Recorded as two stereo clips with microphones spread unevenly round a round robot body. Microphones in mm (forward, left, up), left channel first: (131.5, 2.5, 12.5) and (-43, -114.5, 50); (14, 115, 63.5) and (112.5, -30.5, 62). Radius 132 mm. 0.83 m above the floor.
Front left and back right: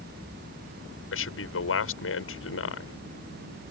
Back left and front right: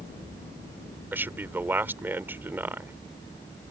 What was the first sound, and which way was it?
A man speaking, 25° left.